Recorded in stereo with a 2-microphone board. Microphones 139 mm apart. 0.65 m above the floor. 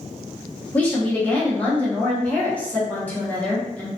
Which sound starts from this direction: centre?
A woman speaking, at 0.7 s.